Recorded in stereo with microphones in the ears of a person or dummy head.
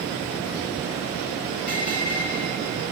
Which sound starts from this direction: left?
A bell, at 1.7 s.